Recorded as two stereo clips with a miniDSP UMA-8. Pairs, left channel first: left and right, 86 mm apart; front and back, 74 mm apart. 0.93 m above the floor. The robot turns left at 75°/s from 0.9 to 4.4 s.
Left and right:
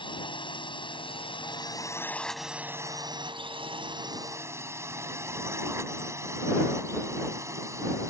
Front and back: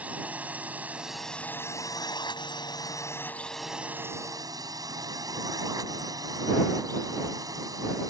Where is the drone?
110° left; by 8.1 s 145° right.